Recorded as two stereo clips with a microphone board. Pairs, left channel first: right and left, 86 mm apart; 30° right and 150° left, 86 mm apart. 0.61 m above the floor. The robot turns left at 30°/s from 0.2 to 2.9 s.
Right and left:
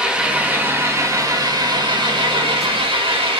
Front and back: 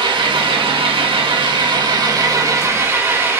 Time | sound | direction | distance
0.0 | an engine running | 165° left | 0.8 m